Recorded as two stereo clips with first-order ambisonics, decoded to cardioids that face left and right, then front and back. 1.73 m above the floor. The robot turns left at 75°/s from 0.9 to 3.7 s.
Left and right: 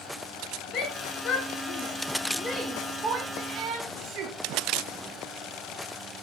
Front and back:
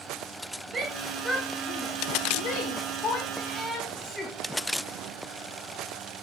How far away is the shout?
About 0.8 m.